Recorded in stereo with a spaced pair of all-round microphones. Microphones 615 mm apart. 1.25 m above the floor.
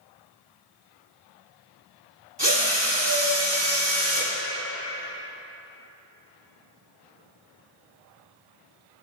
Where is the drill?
40° right (ahead or behind), 1.9 m.